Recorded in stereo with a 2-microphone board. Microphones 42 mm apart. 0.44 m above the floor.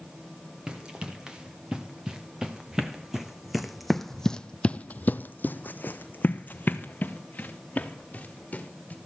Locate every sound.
0.7 s running footsteps: 20° right (ahead or behind), 3 m; by 9.0 s 35° left (ahead or behind), 3 m